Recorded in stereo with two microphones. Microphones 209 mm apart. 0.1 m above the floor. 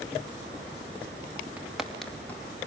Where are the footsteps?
5° right (ahead or behind), 3.5 m; by 2.6 s 15° left (ahead or behind), 3 m.